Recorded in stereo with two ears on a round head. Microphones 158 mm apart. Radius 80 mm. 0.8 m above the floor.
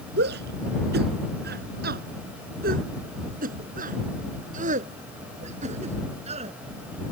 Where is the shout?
70° right (ahead or behind); by 6.5 s 40° right (ahead or behind).